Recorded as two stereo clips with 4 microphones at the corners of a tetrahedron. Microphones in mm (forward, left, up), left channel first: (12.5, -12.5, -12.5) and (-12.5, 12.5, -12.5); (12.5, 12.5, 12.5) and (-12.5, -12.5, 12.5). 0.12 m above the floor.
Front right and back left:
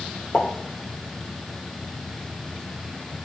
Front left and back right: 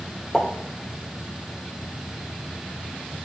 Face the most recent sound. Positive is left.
turn(degrees=-25)